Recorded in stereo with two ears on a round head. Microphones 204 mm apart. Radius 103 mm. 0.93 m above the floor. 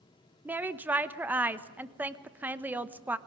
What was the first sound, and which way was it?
A woman speaking, 10° right (ahead or behind).